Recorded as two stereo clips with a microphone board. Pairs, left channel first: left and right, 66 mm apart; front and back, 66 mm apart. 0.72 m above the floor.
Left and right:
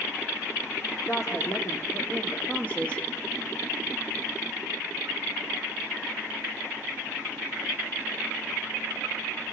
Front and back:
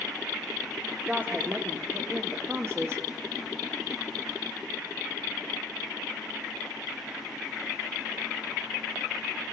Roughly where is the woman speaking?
Behind left.